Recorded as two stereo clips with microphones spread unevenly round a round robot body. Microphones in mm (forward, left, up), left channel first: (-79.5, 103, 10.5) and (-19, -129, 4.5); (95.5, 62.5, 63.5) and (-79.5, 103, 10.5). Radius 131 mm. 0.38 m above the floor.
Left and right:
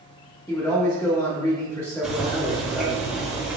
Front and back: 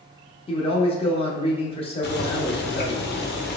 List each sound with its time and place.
0.5 s a man speaking: 40° left, 0.8 m
2.0 s boiling: 10° left, 0.7 m